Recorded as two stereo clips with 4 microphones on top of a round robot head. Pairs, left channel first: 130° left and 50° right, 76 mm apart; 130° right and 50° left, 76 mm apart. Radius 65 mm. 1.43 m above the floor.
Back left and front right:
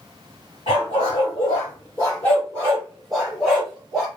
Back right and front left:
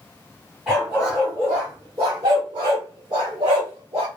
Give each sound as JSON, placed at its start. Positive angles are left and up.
{"t": 0.7, "sound": "a dog barking", "azimuth_deg": 135, "distance_m": 1.3}